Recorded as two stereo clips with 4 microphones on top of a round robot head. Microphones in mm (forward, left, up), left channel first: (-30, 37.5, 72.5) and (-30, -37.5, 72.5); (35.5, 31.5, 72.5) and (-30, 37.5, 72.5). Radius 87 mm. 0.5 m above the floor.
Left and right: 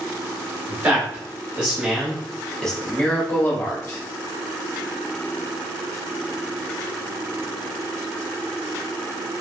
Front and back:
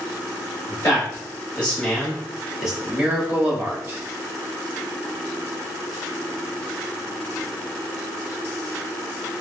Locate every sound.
0.7 s a man speaking: 40° right, 1.6 m; by 4.0 s 135° left, 1.6 m